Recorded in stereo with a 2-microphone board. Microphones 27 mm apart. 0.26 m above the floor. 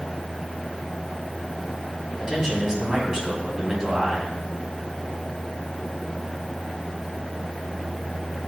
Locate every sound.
2.2 s a man speaking: 15° right (ahead or behind), 2.5 m